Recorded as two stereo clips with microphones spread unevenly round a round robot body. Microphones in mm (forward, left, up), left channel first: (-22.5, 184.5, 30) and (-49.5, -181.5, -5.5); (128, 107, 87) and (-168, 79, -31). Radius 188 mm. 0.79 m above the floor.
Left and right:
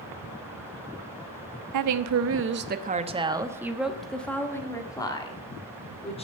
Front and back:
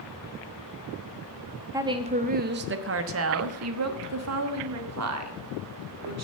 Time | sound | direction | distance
1.7 | a woman speaking | 110° right | 0.8 m